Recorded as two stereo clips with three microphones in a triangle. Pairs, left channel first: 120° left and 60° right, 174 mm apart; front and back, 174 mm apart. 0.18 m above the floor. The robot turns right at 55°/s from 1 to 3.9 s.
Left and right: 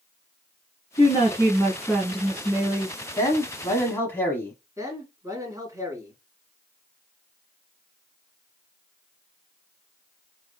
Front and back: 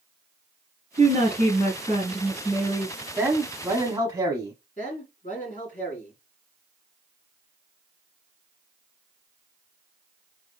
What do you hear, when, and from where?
1.0 s a woman speaking: 160° left, 1.9 m; by 3.0 s 90° right, 1.9 m
3.2 s a man speaking: 125° left, 1.0 m; by 4.5 s 165° left, 1.0 m
4.8 s a man speaking: 5° left, 2.5 m